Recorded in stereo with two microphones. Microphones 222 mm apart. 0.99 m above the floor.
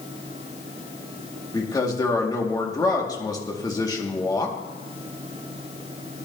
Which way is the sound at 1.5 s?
15° left (ahead or behind).